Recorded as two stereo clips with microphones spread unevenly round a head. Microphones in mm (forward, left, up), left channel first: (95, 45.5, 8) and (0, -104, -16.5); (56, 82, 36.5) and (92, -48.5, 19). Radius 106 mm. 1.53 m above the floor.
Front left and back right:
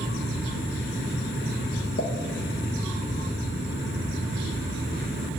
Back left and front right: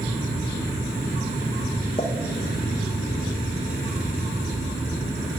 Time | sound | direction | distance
2.0 | a pop | 65° left | 1.2 m